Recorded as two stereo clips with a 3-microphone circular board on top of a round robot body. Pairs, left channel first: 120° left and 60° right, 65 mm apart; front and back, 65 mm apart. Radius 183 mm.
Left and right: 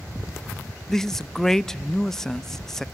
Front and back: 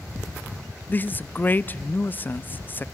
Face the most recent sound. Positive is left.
turn(degrees=40)